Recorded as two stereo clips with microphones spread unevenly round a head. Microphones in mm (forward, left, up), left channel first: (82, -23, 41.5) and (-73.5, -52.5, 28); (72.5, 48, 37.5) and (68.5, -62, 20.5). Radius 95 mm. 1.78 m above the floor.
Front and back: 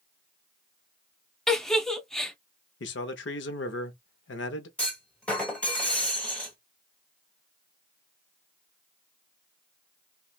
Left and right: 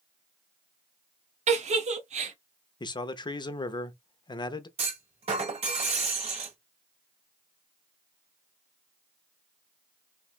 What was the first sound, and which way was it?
A giggle, 75° right.